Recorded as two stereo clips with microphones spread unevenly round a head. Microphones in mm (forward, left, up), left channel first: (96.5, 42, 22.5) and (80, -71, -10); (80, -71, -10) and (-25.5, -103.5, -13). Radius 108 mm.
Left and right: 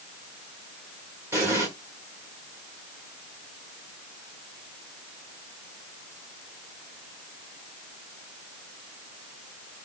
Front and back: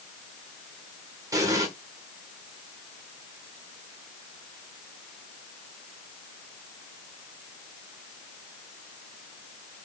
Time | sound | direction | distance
1.3 | an explosion | 175° left | 1.4 m